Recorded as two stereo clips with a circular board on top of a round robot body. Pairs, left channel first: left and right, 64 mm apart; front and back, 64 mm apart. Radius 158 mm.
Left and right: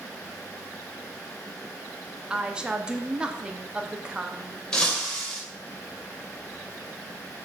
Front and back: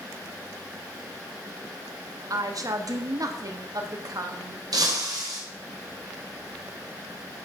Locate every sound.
2.3 s a woman speaking: 165° right, 1.4 m
4.7 s breaking glass: 170° left, 2.5 m